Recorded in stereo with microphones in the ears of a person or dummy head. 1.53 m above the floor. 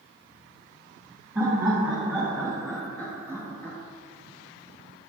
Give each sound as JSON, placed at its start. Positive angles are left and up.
{"t": 1.4, "sound": "laughter", "side_deg": -10, "distance_m": 3.0}